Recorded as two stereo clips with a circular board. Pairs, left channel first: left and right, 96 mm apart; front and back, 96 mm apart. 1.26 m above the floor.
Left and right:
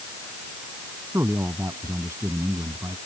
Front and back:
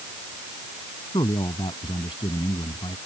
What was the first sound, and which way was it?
A man speaking, 30° right.